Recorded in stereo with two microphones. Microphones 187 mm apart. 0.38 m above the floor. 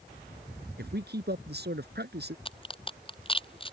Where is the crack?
30° left (ahead or behind).